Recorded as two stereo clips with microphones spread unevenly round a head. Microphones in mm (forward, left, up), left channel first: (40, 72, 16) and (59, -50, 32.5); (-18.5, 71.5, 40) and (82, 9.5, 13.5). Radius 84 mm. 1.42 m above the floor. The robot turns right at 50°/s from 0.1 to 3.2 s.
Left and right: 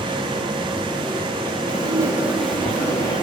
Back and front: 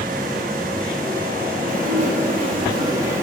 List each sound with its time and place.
1.7 s dishes clattering: 35° right, 1.6 m; by 3.2 s 40° left, 1.6 m